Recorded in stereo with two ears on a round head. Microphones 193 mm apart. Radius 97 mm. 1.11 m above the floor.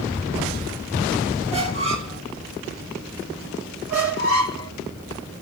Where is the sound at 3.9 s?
50° right (ahead or behind), 3.5 m.